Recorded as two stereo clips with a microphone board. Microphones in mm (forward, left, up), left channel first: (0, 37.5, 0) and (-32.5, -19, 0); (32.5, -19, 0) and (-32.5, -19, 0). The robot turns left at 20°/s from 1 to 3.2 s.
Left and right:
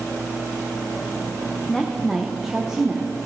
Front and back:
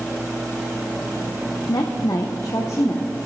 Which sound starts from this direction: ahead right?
A woman speaking, at 1.7 s.